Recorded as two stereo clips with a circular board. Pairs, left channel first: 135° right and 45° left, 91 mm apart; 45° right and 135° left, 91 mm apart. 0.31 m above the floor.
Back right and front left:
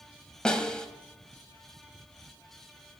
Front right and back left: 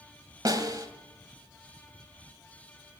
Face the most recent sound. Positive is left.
turn(degrees=150)